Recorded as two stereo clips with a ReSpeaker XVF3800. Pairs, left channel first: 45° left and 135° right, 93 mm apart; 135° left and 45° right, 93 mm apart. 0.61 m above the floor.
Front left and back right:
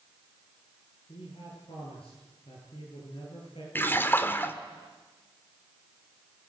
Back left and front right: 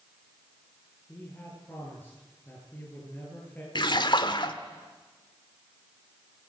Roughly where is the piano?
I don't hear a piano.